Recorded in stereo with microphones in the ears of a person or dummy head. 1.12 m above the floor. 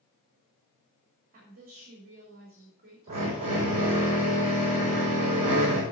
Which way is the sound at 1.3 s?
45° right (ahead or behind).